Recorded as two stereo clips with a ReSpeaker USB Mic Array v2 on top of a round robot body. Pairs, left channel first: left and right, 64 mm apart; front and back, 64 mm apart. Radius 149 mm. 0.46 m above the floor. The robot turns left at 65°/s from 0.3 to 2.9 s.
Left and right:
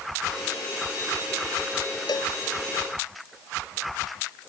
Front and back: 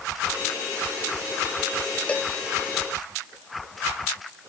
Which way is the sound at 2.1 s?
75° left.